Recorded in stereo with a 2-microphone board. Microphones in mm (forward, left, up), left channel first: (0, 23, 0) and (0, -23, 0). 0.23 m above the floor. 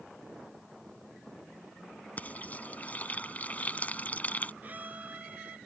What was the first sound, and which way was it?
Frying, 35° left (ahead or behind).